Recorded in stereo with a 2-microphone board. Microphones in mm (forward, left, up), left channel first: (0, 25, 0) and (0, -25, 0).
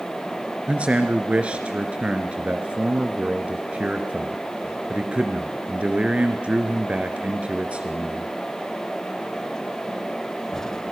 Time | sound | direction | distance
0.7 | a man speaking | 25° right (ahead or behind) | 1.9 m